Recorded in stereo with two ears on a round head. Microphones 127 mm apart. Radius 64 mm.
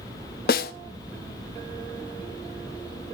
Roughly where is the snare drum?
Left.